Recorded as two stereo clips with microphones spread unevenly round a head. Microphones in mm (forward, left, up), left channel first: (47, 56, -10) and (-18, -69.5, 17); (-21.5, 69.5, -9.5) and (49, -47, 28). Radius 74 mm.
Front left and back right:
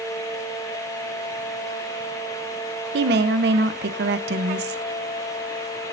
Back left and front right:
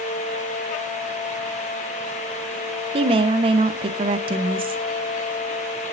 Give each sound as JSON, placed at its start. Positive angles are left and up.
{"t": 2.9, "sound": "a woman speaking", "azimuth_deg": -115, "distance_m": 1.1}